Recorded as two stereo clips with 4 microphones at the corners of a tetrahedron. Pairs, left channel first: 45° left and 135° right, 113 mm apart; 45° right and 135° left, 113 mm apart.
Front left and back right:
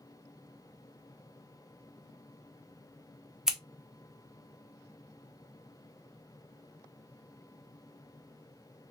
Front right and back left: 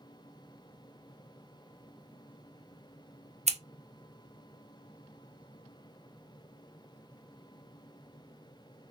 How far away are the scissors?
About 0.5 m.